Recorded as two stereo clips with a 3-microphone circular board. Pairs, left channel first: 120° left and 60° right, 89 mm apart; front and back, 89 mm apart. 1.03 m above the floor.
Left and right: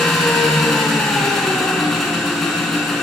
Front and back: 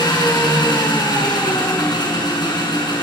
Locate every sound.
0.0 s an engine running: 35° left, 6 m